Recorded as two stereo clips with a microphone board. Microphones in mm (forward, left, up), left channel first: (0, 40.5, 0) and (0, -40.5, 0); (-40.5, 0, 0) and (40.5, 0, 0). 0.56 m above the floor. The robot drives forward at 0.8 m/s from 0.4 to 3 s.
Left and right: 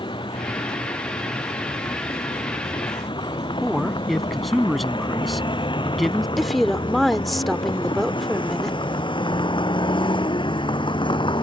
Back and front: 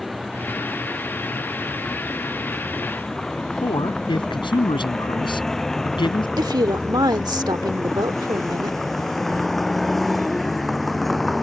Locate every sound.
0.0 s a vehicle: 90° left
3.6 s a man speaking: straight behind
6.4 s a woman speaking: straight ahead